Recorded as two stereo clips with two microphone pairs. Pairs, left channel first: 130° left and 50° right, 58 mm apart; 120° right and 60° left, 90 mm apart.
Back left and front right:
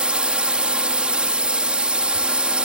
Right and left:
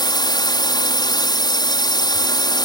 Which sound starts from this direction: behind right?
A drone, at 0.0 s.